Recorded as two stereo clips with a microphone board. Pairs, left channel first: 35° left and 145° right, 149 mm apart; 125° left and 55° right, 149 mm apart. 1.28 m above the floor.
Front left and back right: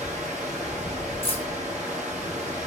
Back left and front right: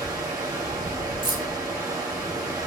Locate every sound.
0.0 s running water: 120° right, 1.0 m
1.2 s keys jangling: 5° right, 0.9 m